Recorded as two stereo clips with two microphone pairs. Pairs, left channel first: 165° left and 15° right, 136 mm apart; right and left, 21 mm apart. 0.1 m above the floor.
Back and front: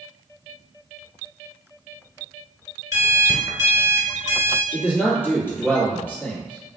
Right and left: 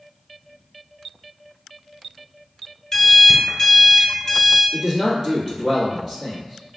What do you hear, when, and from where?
2.9 s an alarm clock: 45° right, 1.0 m
4.7 s a man speaking: 110° left, 1.7 m